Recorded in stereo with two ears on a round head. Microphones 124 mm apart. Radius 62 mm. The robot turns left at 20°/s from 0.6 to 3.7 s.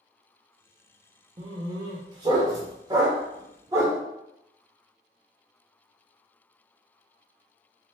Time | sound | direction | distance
1.4 | a dog barking | 30° right (ahead or behind) | 0.7 m